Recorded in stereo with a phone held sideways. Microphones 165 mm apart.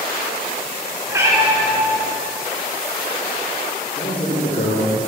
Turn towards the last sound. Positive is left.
turn(degrees=65)  # may be behind; listen again after turning